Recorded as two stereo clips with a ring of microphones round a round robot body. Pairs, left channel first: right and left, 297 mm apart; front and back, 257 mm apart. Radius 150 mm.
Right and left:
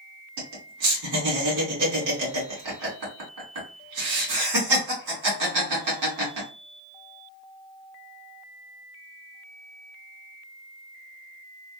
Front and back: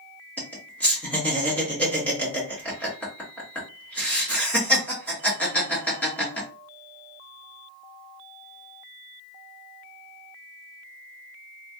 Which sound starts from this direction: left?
Laughter, at 0.4 s.